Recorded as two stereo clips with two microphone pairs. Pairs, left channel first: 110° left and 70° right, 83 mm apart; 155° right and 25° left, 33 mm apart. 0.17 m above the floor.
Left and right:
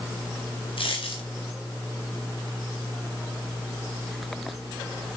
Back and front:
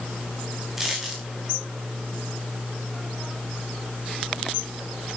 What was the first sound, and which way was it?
A dropped coin, 105° left.